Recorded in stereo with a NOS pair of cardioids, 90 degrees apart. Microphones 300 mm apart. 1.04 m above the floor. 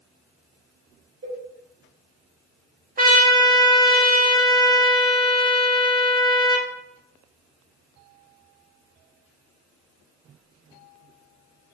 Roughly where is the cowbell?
Ahead right.